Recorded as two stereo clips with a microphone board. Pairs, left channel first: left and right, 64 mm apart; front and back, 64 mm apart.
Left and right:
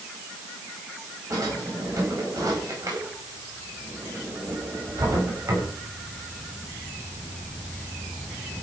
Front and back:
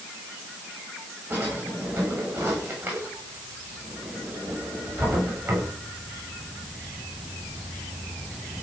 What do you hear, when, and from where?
1.3 s a drawer: 130° right, 9.5 m